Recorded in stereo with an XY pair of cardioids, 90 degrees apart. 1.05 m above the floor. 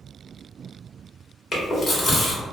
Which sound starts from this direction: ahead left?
Chewing, at 1.5 s.